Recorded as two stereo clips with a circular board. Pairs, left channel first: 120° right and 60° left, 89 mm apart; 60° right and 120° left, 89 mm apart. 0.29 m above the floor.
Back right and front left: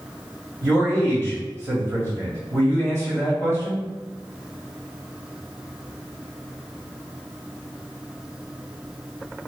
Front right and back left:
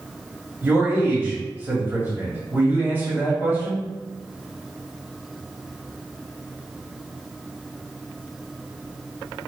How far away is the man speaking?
About 1.7 m.